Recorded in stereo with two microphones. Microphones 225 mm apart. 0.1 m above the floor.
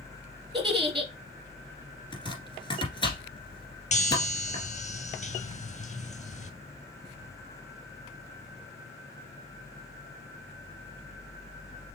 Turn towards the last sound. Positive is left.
turn(degrees=30)  # may be behind; listen again after turning